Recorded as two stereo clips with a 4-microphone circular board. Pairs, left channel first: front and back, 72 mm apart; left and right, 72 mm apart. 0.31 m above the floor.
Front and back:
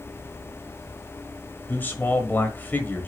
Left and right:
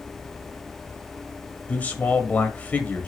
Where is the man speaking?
40° left, 1.3 m.